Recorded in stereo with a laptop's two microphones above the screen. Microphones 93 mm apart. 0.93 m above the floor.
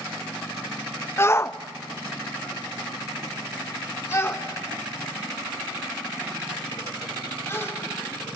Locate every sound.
1.2 s a shout: 25° left (ahead or behind), 0.7 m